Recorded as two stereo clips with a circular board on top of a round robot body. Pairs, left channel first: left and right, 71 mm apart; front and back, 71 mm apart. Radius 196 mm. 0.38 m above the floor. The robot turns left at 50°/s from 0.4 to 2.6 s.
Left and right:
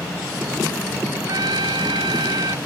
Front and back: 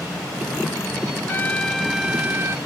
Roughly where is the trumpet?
Ahead right.